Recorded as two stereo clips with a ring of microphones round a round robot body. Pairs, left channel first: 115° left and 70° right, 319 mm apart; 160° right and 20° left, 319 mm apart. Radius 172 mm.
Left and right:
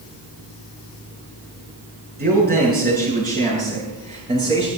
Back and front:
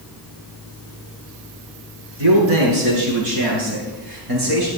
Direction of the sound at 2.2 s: 5° right.